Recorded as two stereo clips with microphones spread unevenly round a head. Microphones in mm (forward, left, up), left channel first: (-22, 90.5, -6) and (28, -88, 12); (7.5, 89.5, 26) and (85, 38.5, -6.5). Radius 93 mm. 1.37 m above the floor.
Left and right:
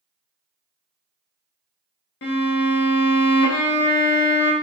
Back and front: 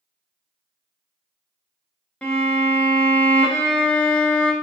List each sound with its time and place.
2.2 s a violin: 90° left, 0.7 m